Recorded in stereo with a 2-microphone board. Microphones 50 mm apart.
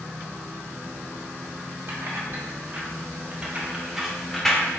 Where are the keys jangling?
55° right (ahead or behind), 1.4 m; by 4.8 s 20° left (ahead or behind), 0.8 m.